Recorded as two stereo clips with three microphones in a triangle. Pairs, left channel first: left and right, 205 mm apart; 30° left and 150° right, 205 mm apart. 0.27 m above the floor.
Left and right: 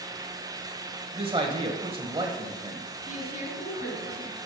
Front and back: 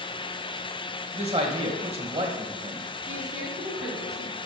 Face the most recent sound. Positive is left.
turn(degrees=140)